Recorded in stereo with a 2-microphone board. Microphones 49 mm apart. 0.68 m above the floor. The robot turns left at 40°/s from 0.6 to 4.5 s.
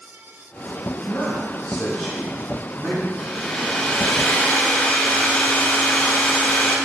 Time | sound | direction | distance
1.0 | a man speaking | 45° left | 2.5 m
3.2 | a hair dryer | 175° right | 2.0 m